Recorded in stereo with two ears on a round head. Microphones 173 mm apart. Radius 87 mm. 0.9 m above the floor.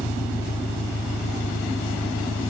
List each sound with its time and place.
0.0 s an engine running: 65° left (ahead or behind)